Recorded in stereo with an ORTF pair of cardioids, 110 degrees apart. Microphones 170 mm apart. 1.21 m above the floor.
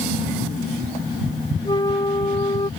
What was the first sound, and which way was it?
A flute, 25° left.